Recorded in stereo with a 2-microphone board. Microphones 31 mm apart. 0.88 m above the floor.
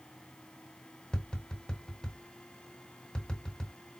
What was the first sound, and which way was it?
Tapping, 25° left (ahead or behind).